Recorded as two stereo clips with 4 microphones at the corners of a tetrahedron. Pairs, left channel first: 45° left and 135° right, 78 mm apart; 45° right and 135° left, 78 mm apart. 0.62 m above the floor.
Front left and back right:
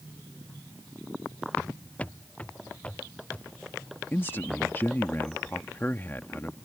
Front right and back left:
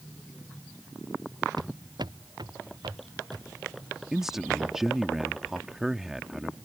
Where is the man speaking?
60° left.